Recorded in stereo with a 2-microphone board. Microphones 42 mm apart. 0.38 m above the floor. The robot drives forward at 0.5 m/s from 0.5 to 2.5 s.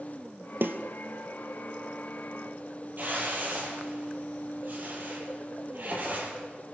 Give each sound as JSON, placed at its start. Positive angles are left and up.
{"t": 0.6, "sound": "a snare drum", "side_deg": -55, "distance_m": 1.7}
{"t": 3.0, "sound": "a whoosh", "side_deg": -45, "distance_m": 9.5}